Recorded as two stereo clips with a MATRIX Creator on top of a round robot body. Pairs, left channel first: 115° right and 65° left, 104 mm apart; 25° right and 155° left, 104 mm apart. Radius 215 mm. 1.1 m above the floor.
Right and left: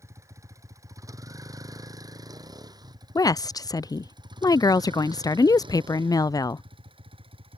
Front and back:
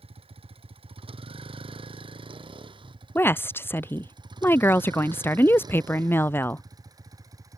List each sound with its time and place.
0.0 s a vehicle: 130° left; by 7.6 s 100° left
3.1 s a woman speaking: 80° right